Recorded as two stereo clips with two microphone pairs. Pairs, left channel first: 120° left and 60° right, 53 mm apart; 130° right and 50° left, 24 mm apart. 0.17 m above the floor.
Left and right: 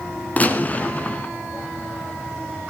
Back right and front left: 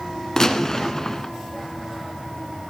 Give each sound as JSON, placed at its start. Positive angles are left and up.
{"t": 0.4, "sound": "a gunshot", "azimuth_deg": 165, "distance_m": 1.1}